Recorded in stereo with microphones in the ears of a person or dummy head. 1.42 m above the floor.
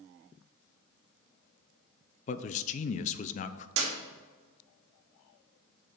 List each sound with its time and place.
2.3 s a man speaking: 45° left (ahead or behind), 0.6 m
3.8 s a clap: 80° right, 2 m